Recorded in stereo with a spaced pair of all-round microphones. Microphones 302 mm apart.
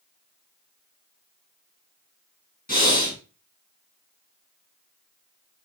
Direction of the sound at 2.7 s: 30° left (ahead or behind).